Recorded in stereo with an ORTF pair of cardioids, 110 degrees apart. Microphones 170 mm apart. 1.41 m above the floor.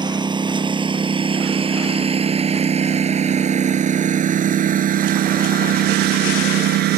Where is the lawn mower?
25° right; by 7.0 s 75° right.